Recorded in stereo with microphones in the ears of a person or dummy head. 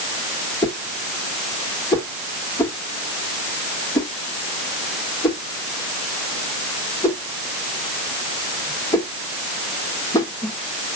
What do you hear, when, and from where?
0.6 s a whoosh: 10° left (ahead or behind), 2.0 m